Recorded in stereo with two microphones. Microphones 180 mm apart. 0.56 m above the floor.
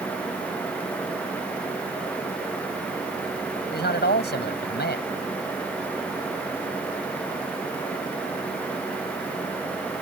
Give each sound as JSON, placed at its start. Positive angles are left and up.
{"t": 3.7, "sound": "a man speaking", "side_deg": 70}